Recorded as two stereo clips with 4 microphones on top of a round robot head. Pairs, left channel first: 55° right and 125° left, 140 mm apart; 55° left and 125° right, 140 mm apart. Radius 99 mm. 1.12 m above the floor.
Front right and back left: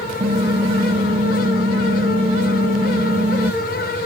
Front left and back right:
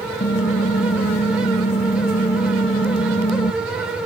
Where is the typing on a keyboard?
85° left, 1.5 m.